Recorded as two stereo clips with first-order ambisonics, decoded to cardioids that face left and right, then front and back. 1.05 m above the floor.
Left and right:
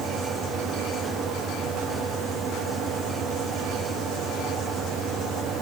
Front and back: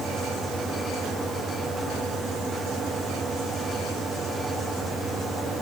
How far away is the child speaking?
I don't hear a child speaking.